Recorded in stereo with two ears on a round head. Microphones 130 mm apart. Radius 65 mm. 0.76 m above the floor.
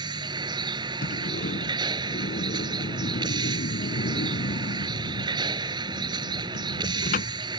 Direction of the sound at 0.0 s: 30° right (ahead or behind).